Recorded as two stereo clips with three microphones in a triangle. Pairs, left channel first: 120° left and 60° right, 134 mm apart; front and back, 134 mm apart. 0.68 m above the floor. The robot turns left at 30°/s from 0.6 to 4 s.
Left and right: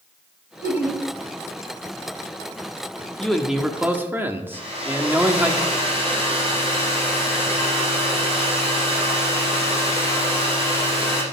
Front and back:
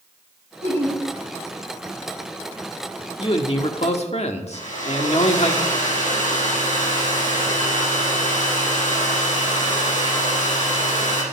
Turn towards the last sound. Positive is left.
turn(degrees=-20)